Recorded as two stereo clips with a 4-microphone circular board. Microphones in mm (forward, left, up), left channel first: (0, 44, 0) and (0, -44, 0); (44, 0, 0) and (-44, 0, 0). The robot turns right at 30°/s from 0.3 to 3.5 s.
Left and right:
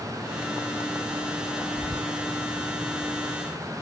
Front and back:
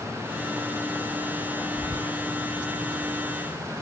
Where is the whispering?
45° left, 0.9 m; by 2.1 s 55° left, 0.9 m.